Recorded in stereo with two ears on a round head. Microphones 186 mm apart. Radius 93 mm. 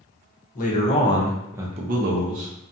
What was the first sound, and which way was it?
A man speaking, 40° left (ahead or behind).